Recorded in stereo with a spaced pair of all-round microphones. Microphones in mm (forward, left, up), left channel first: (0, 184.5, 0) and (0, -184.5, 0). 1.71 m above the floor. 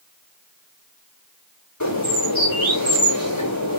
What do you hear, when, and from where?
1.8 s a bird: 55° left (ahead or behind), 5.5 m